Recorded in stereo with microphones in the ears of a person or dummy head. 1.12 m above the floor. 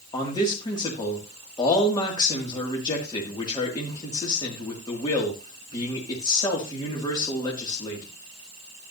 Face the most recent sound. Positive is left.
turn(degrees=20)  # may be behind; listen again after turning